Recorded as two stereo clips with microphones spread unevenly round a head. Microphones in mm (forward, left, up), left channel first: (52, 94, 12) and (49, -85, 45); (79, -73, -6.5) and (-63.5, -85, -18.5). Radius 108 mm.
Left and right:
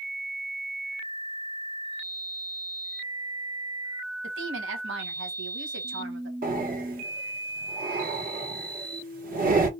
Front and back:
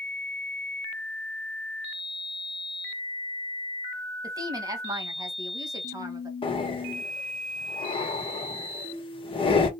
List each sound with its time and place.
4.2 s a woman speaking: 115° right, 1.2 m
6.4 s breathing: 50° right, 1.2 m